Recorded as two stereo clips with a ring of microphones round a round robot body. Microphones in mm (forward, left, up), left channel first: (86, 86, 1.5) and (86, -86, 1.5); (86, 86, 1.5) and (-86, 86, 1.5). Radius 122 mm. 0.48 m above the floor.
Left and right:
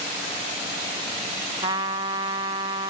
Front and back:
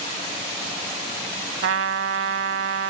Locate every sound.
1.6 s a trumpet: 160° right